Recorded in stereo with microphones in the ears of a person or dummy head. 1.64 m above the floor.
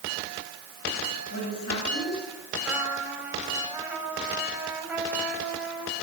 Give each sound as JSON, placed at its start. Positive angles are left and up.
{"t": 1.3, "sound": "a woman speaking", "side_deg": 85, "distance_m": 9.5}
{"t": 2.6, "sound": "a trumpet", "side_deg": -5, "distance_m": 6.5}